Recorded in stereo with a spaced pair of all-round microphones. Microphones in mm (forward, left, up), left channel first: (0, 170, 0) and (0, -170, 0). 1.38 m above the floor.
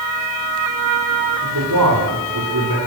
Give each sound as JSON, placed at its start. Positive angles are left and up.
{"t": 1.4, "sound": "a man speaking", "side_deg": -70, "distance_m": 6.5}